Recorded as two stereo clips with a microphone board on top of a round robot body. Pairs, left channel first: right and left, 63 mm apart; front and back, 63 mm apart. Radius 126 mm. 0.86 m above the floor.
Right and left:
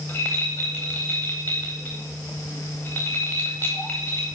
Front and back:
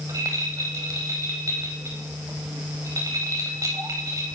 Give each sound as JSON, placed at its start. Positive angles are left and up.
{"t": 0.1, "sound": "a rattle", "azimuth_deg": -145, "distance_m": 0.7}